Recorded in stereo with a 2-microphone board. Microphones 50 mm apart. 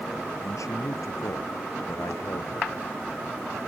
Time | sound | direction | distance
0.4 | a man speaking | 80° left | ?